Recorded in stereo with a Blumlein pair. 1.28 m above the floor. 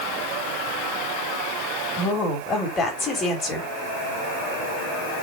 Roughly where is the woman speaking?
Ahead.